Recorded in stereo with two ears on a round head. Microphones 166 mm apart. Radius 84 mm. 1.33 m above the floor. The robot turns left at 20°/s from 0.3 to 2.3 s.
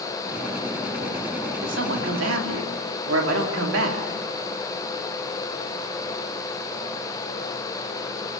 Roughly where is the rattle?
I don't hear a rattle.